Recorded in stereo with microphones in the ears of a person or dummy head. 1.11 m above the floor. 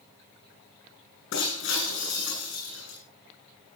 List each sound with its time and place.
1.3 s breaking glass: 75° left (ahead or behind), 8.5 m